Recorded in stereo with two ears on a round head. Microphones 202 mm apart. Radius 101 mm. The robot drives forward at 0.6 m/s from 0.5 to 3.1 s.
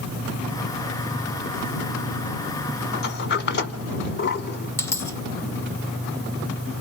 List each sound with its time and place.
2.9 s a sliding door: 50° left (ahead or behind), 1.2 m
4.8 s a dropped coin: 10° left (ahead or behind), 0.6 m